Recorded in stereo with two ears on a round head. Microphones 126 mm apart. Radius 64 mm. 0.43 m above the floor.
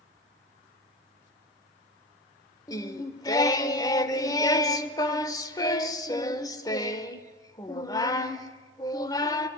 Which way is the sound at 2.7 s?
25° left (ahead or behind).